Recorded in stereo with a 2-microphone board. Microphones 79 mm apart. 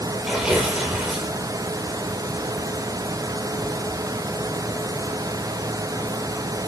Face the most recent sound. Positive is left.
turn(degrees=-5)  # may be behind; listen again after turning